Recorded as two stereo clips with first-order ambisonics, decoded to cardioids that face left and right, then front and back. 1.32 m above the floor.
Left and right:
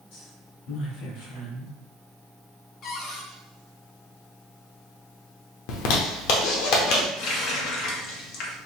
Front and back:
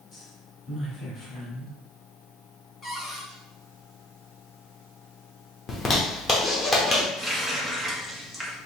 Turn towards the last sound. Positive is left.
turn(degrees=90)